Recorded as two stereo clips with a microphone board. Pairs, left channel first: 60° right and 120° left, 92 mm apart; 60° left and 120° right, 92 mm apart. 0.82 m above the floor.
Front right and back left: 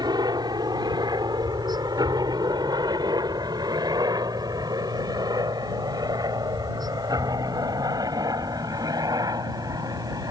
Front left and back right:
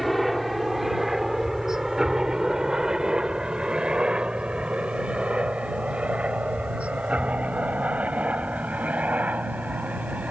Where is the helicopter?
150° left; by 10.3 s 165° left.